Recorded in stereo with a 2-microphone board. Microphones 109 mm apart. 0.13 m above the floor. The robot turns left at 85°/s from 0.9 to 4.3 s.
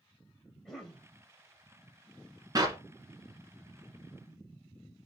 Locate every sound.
0.7 s a cough: 5° left (ahead or behind), 3 m; by 1.1 s 15° left (ahead or behind), 3 m
2.5 s a clap: 35° right (ahead or behind), 1.4 m; by 2.8 s 30° right (ahead or behind), 1.4 m